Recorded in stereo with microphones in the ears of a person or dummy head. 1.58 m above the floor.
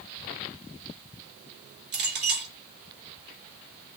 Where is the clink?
65° right (ahead or behind), 3 m.